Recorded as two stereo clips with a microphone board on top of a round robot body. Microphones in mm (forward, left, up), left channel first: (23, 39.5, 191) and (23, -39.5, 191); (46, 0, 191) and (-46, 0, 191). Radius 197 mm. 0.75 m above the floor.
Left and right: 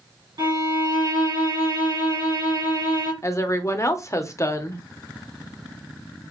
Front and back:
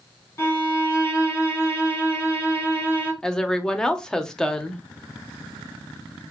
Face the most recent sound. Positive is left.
turn(degrees=80)